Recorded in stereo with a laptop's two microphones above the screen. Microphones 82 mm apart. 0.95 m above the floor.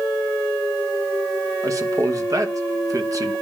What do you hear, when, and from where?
1.6 s a man speaking: 45° right (ahead or behind), 1.2 m